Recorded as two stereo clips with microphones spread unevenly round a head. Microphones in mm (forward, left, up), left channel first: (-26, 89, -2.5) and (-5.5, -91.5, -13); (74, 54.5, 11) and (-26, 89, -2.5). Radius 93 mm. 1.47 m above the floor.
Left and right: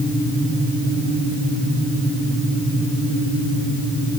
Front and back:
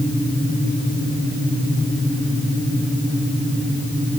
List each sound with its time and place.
Only background noise.